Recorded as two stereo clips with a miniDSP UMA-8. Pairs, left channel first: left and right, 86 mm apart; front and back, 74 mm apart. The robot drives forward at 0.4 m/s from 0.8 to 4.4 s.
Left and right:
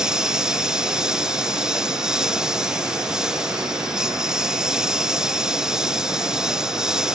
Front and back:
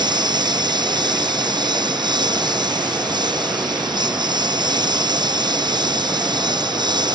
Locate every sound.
0.0 s a lawn mower: 170° right